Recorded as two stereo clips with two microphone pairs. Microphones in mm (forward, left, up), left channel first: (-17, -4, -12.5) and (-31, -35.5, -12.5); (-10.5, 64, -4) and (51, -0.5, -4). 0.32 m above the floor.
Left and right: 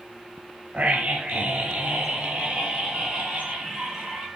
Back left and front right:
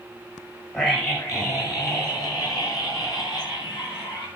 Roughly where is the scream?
Behind.